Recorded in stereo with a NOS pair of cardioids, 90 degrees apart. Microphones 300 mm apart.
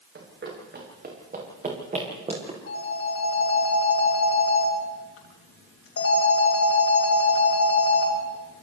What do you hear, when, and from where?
0.1 s running footsteps: 40° right, 8 m; by 2.6 s 20° right, 9 m
2.7 s a phone ringing: 50° left, 9.5 m